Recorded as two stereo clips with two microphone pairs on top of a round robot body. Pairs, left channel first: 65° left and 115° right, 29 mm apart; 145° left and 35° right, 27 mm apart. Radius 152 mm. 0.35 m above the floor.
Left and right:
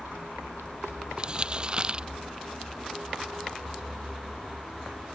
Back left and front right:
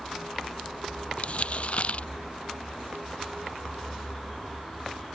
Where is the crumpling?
175° right.